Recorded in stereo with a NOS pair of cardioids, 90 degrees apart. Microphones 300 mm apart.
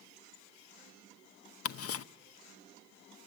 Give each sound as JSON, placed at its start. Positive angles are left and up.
{"t": 1.6, "sound": "ticking", "azimuth_deg": 55, "distance_m": 0.8}